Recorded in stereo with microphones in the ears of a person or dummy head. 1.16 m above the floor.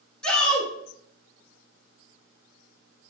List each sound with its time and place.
0.2 s a shout: 5° left (ahead or behind), 0.9 m